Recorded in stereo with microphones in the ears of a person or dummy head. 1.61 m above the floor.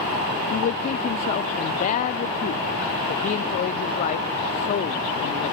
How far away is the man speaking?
About 0.5 m.